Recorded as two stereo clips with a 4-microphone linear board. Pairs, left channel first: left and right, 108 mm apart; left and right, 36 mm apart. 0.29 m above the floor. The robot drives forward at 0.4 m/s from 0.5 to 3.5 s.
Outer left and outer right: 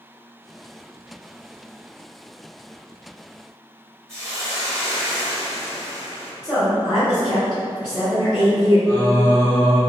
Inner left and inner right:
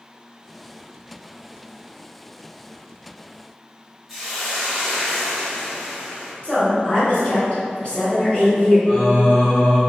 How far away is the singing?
About 1.4 m.